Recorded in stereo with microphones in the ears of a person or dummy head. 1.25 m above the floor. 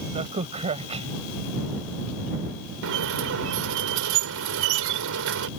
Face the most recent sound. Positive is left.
turn(degrees=-75)  # may be behind; listen again after turning